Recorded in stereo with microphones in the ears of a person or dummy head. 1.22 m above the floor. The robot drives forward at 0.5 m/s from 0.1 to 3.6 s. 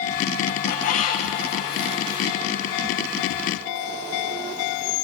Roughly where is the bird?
Left.